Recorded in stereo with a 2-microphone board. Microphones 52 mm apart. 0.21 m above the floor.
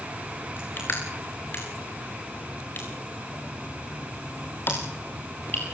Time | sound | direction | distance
0.6 | crushing | 40° left (ahead or behind) | 5 m